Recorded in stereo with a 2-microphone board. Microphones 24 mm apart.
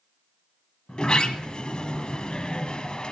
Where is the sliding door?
45° left (ahead or behind), 1.1 m.